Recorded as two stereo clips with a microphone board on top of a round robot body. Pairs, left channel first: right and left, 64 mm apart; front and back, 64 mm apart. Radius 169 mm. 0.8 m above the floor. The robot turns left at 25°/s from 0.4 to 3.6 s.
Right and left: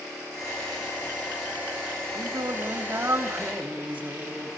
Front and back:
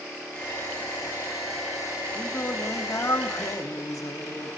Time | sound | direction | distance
2.1 | singing | 65° left | 2 m